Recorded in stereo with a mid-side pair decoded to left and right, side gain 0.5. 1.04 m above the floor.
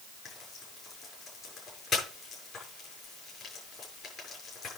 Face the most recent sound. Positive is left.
turn(degrees=50)